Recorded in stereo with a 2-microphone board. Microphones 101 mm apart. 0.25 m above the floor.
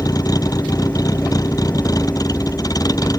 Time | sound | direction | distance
0.0 | a vehicle | 35° left (ahead or behind) | ?